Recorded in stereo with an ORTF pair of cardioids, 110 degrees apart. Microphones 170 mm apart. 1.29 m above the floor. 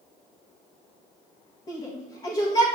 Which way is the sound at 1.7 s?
30° left.